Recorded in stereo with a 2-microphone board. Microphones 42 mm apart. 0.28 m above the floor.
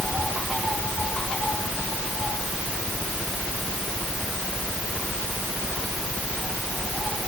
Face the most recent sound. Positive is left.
No sound to turn to.